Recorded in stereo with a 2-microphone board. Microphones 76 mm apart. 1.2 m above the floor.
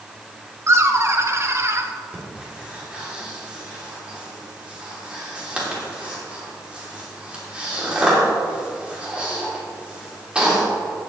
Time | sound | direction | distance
0.7 | laughter | 35° right (ahead or behind) | 1.1 m
2.1 | breathing | 15° right (ahead or behind) | 3 m